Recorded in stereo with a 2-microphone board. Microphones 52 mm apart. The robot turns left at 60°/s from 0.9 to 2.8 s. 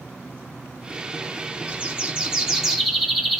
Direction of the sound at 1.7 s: 110° right.